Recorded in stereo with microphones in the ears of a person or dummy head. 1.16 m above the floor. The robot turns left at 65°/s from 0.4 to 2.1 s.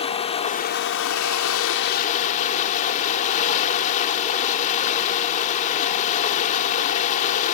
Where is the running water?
150° left; by 7.5 s 40° left.